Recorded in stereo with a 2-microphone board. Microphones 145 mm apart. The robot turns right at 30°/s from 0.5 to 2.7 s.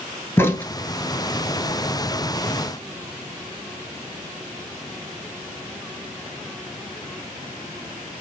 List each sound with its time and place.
0.4 s a crack: 15° left (ahead or behind), 0.9 m; by 0.7 s 10° left (ahead or behind), 0.9 m